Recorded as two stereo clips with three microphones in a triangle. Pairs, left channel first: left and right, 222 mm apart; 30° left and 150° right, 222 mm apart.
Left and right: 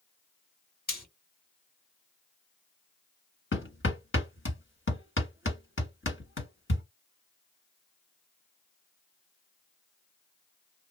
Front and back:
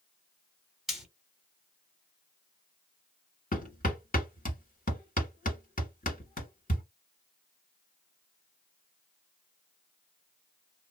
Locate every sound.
0.9 s frying: 120° left, 2 m
3.5 s hammering: 75° left, 1.7 m